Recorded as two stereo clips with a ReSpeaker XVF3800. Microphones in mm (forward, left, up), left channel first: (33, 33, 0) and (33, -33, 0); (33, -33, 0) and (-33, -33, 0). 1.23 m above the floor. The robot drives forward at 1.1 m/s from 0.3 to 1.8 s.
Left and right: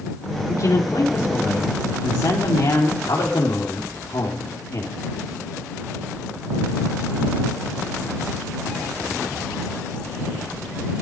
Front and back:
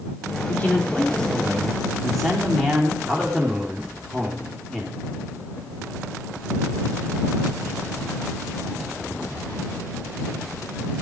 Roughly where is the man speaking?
Ahead left.